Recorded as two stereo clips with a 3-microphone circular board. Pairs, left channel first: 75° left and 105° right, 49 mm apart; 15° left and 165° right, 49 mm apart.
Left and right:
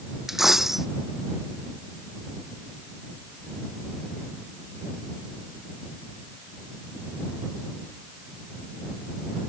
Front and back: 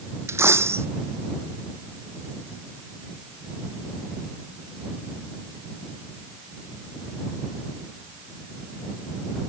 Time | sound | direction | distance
0.3 | a dropped coin | 170° left | ?